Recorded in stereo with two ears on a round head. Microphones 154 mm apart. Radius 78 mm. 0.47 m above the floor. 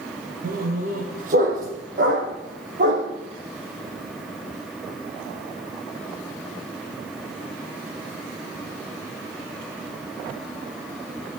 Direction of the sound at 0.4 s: 50° right (ahead or behind).